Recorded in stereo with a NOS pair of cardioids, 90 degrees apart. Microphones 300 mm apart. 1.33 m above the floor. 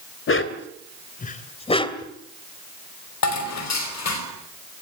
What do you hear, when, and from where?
0.3 s a dog barking: 45° left, 2.5 m; by 2.1 s 10° left, 2.5 m
3.2 s dishes clattering: 60° left, 5 m